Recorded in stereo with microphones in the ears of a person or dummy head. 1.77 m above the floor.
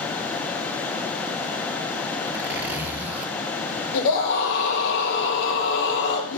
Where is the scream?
65° left (ahead or behind), 4 m.